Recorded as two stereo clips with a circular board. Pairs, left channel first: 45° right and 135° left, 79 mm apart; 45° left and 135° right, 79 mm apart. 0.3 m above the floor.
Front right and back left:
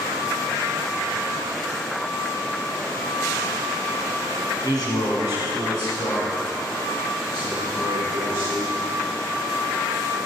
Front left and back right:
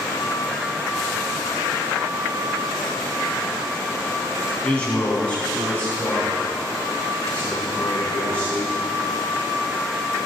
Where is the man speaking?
25° right, 2.5 m.